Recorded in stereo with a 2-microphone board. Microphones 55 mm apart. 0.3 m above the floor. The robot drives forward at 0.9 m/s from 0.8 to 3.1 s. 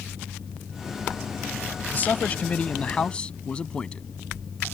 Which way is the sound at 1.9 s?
35° left (ahead or behind).